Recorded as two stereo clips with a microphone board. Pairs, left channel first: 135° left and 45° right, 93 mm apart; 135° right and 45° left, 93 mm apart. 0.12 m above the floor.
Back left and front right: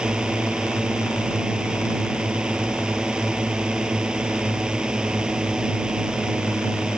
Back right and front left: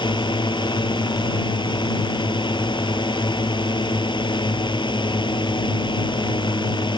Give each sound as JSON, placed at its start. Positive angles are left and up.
{"t": 0.0, "sound": "a drone", "azimuth_deg": -125}